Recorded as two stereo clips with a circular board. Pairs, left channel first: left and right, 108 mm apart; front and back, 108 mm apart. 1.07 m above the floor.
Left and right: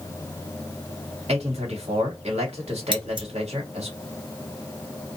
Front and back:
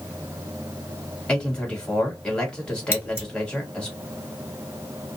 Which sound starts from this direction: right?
A man speaking, at 1.3 s.